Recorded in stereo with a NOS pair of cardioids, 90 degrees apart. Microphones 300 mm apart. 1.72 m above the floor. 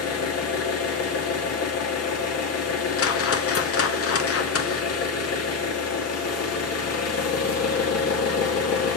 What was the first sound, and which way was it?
An engine running, 60° left.